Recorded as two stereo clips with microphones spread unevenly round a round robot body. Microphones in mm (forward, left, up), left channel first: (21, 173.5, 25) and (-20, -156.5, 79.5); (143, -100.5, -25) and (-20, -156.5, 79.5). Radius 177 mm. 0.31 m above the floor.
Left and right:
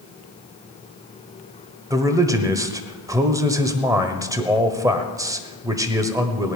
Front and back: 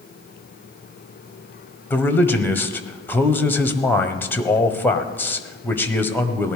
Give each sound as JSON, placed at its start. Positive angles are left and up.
{"t": 1.9, "sound": "a man speaking", "azimuth_deg": -10, "distance_m": 1.3}